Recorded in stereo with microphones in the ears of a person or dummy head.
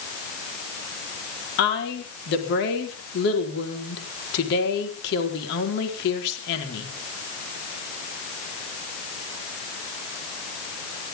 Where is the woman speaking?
60° left (ahead or behind), 4.5 m.